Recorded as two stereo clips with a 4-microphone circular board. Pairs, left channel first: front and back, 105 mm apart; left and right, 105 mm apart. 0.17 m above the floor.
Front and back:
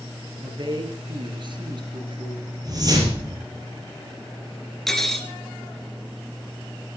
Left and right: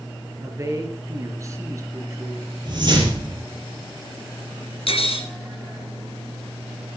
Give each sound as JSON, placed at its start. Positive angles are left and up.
{"t": 0.4, "sound": "a woman speaking", "azimuth_deg": -145, "distance_m": 3.5}
{"t": 2.6, "sound": "a whoosh", "azimuth_deg": -130, "distance_m": 4.5}
{"t": 4.9, "sound": "cutlery clinking", "azimuth_deg": 85, "distance_m": 1.9}